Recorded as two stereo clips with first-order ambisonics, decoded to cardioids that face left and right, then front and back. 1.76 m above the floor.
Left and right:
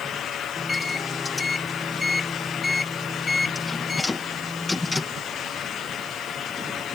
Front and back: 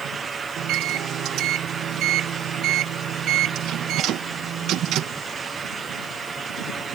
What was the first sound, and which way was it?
A microwave, 175° left.